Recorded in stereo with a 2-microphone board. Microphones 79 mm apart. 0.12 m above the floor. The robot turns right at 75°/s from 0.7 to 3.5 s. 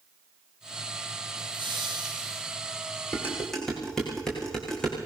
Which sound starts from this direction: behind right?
Laughter, at 1.4 s.